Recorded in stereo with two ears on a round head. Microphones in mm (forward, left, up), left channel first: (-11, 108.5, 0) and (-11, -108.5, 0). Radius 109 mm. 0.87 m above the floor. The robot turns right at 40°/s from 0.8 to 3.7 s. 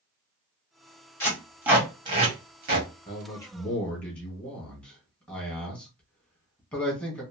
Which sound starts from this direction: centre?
Tape being pulled, at 1.2 s.